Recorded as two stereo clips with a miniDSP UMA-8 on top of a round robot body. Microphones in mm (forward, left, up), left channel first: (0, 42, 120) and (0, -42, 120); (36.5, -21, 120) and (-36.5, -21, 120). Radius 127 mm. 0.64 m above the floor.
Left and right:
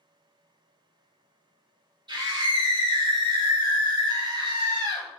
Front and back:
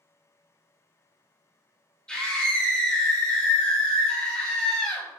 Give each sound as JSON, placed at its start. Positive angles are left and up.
{"t": 2.1, "sound": "a scream", "azimuth_deg": -80, "distance_m": 3.0}